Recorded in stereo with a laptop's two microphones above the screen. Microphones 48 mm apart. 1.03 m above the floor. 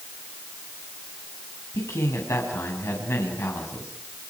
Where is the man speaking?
80° left, 6 m; by 3.9 s 65° left (ahead or behind), 6.5 m.